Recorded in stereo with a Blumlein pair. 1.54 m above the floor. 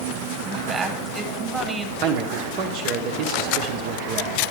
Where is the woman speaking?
15° right, 1.5 m.